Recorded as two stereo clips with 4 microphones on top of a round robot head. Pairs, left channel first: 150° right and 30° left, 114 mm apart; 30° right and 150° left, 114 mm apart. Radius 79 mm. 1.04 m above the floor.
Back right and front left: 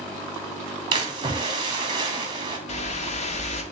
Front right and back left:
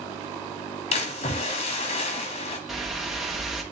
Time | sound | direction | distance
0.9 | a splash | 15° right | 1.9 m
2.7 | a whoosh | 120° right | 1.7 m